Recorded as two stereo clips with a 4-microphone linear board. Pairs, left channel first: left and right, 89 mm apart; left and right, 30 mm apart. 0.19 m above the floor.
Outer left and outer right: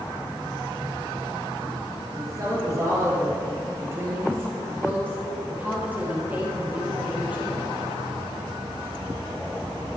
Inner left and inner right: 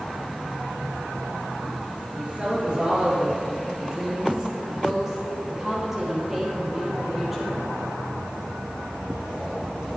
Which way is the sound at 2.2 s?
40° right (ahead or behind).